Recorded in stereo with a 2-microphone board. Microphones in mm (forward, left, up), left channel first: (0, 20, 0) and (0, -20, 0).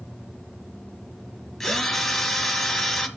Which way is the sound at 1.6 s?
5° left (ahead or behind).